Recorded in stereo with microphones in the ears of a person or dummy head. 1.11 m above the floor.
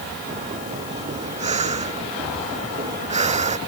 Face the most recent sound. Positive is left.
turn(degrees=-35)  # may be behind; listen again after turning